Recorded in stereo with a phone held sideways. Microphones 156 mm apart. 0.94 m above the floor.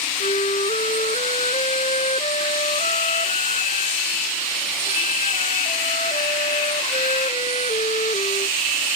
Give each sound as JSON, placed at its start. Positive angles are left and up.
{"t": 0.2, "sound": "a flute", "side_deg": 50}